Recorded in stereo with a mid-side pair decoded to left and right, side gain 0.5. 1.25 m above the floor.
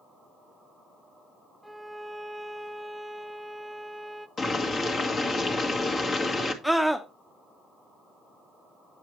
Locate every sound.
1.6 s a violin: 5° right, 0.5 m
4.4 s boiling: 40° left, 1.6 m
6.6 s a scream: straight ahead, 0.8 m